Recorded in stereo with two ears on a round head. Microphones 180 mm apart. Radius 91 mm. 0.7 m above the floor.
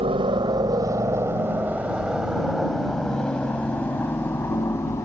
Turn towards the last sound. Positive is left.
turn(degrees=15)  # may be behind; listen again after turning